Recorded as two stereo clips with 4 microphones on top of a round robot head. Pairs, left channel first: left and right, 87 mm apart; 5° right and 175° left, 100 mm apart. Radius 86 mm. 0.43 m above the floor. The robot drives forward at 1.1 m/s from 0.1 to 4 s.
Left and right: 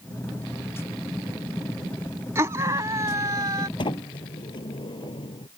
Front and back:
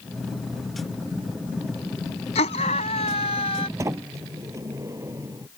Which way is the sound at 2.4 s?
25° right.